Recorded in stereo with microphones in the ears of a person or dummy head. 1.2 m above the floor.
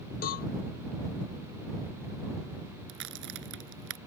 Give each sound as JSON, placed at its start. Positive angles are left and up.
{"t": 0.2, "sound": "a cowbell", "side_deg": 55}
{"t": 2.9, "sound": "a crack", "side_deg": -65}